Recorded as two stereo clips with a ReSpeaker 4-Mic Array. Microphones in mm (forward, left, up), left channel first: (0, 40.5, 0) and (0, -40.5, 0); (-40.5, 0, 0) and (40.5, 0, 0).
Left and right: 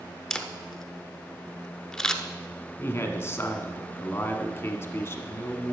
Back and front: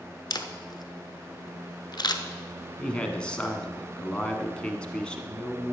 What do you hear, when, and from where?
0.3 s a camera shutter: 170° left, 0.8 m
2.8 s a man speaking: 115° left, 1.2 m